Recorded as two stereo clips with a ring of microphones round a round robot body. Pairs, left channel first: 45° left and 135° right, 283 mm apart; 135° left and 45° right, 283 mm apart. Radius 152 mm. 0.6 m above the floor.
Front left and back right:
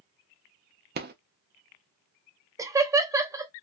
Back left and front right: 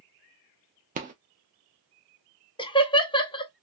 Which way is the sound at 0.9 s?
95° right.